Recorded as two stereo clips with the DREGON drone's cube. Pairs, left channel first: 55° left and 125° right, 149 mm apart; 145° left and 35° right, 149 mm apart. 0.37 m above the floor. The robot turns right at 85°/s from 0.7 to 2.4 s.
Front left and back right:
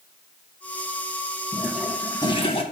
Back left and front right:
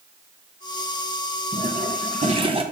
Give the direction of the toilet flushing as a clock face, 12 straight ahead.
2 o'clock.